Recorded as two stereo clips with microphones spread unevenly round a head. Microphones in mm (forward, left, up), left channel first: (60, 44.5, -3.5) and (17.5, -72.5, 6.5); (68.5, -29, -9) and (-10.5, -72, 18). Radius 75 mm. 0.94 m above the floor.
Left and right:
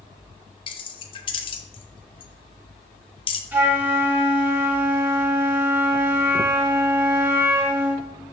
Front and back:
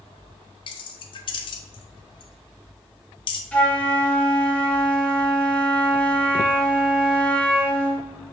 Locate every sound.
0.7 s keys jangling: 25° left, 0.5 m
3.5 s a flute: 35° right, 1.0 m